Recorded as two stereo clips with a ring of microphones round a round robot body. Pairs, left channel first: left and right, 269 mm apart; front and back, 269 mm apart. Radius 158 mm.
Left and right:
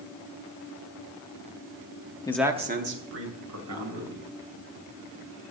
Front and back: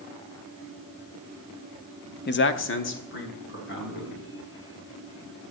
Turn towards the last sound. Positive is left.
turn(degrees=-55)